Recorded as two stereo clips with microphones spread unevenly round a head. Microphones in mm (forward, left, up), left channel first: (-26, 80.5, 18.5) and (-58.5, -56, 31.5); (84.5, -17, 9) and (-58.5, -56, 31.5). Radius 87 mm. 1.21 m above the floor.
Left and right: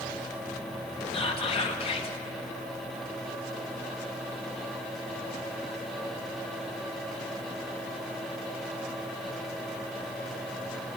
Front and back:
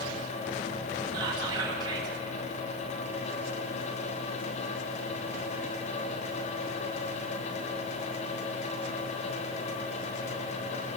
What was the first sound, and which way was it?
Whispering, 125° left.